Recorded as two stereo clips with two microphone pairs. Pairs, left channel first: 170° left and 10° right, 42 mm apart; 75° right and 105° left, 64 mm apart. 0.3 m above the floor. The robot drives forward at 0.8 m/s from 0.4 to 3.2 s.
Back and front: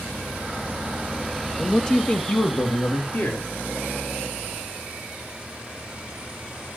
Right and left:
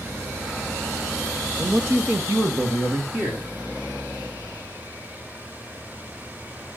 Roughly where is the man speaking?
Left.